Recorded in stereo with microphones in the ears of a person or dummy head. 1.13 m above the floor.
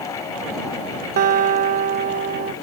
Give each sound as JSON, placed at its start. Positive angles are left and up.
{"t": 1.2, "sound": "a guitar", "side_deg": -55}